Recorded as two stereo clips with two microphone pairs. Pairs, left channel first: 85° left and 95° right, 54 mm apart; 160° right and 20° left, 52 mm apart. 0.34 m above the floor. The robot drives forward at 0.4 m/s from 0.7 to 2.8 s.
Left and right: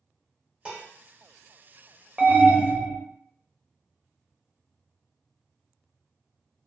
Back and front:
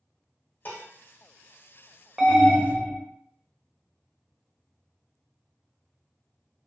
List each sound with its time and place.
0.7 s dishes clattering: 155° right, 0.9 m
2.2 s an alarm: 55° right, 0.6 m; by 3.0 s 110° right, 0.6 m